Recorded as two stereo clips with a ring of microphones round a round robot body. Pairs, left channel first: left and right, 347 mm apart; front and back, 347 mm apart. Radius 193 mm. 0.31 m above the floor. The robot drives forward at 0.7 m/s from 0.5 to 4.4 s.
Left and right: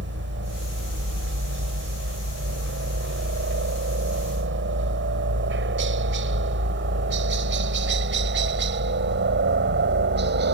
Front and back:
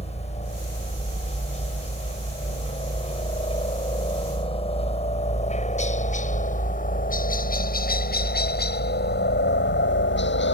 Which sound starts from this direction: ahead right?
A helicopter, at 0.0 s.